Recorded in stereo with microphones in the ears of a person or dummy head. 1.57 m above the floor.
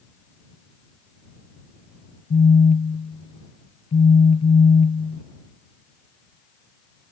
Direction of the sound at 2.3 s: 35° left (ahead or behind).